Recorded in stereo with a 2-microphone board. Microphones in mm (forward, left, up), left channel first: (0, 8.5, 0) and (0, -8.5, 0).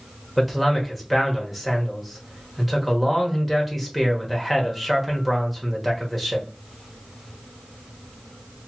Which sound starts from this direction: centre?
A man speaking, at 0.4 s.